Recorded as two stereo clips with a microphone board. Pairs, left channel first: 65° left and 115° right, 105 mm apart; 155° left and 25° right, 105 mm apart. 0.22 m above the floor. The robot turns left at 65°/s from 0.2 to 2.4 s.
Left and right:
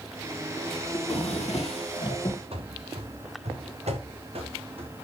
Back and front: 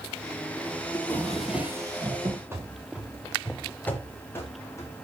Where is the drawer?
100° left, 3.5 m; by 2.4 s 5° left, 3.5 m.